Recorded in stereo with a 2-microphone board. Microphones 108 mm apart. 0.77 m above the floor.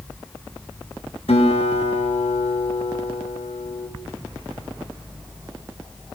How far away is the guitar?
About 5 m.